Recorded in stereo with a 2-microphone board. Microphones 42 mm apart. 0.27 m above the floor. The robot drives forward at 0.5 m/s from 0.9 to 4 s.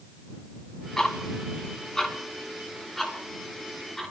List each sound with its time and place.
1.0 s ticking: 15° left (ahead or behind), 1.8 m; by 4.1 s 10° left (ahead or behind), 3 m